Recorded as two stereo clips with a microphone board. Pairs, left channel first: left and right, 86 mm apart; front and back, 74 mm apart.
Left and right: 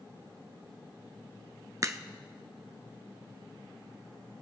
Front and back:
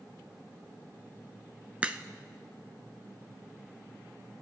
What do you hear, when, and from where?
1.8 s a crack: 115° right, 0.5 m